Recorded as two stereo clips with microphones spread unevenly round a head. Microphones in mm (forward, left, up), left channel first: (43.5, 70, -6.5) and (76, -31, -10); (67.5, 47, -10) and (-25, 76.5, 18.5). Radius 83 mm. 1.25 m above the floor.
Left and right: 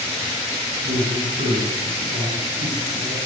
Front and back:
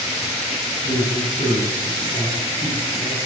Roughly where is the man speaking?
Ahead right.